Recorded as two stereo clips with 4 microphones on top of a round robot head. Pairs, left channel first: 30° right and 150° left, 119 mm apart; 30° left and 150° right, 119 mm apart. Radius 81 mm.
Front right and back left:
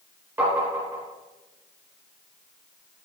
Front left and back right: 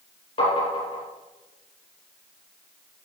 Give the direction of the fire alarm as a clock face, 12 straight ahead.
I don't hear a fire alarm.